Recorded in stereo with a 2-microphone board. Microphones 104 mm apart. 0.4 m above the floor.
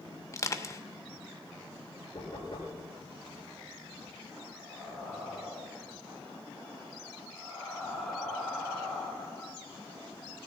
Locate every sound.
0.3 s crushing: 30° left (ahead or behind), 0.8 m
2.1 s knocking: 50° left (ahead or behind), 7.5 m
4.5 s breathing: 5° left (ahead or behind), 4 m